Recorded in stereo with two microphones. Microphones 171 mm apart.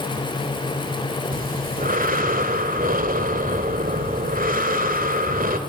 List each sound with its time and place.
1.3 s breathing: 55° right (ahead or behind), 2 m